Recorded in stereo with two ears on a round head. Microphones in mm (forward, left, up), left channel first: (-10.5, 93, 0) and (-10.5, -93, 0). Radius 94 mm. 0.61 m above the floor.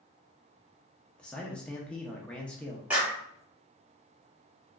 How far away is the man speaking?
About 0.6 m.